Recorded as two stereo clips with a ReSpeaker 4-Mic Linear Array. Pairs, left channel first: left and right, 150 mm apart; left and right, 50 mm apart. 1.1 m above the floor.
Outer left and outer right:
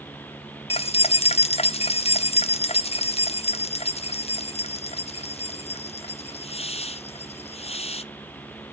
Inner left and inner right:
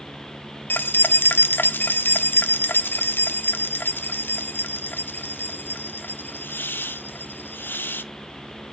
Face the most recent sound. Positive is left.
turn(degrees=40)  # may be behind; listen again after turning